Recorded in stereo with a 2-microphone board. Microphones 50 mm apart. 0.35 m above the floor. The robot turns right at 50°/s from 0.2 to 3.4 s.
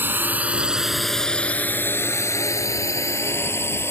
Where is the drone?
40° right (ahead or behind); by 3.9 s 55° left (ahead or behind).